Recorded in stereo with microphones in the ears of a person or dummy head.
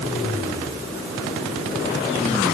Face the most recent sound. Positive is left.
No sound to turn to.